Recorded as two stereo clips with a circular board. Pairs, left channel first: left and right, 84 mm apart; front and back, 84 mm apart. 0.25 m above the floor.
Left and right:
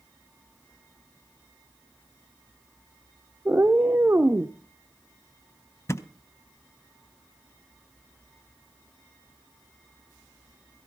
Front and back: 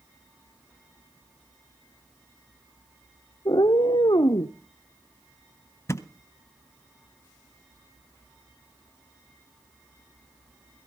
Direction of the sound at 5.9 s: 45° left.